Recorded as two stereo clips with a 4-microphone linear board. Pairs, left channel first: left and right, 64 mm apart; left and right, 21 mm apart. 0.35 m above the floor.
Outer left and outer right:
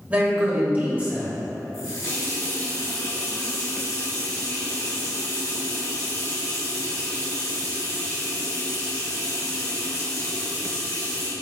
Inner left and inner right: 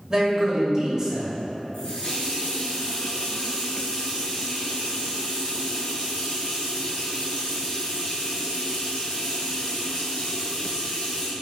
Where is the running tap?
60° left (ahead or behind), 1.7 m.